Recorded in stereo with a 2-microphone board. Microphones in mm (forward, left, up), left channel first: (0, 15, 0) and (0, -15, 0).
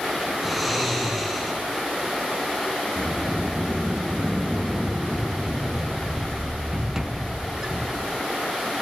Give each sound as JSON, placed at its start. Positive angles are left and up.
{"t": 0.4, "sound": "snoring", "side_deg": 0, "distance_m": 7.0}
{"t": 3.0, "sound": "a sliding door", "side_deg": -20, "distance_m": 0.8}